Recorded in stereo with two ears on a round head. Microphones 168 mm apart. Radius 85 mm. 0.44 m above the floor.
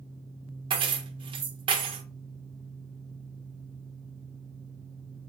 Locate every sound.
0.7 s keys jangling: 30° right (ahead or behind), 0.6 m